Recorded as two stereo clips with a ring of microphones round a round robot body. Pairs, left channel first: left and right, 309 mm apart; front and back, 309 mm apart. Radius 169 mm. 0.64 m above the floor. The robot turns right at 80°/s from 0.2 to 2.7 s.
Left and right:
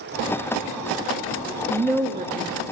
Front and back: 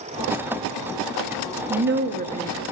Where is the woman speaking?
175° left, 0.6 m; by 2.6 s 110° right, 0.6 m.